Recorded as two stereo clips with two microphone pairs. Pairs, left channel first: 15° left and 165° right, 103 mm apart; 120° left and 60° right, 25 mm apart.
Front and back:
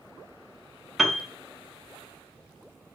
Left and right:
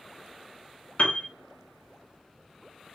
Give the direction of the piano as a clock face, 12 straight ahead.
8 o'clock.